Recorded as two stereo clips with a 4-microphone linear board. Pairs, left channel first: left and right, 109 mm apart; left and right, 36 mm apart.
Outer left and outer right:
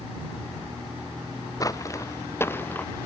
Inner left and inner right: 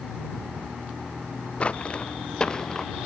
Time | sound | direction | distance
1.6 | footsteps | 30° left (ahead or behind) | ?